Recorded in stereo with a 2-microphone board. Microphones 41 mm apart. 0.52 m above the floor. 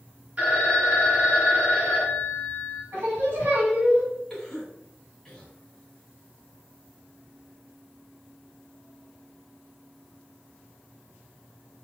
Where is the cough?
10° left (ahead or behind), 2 m.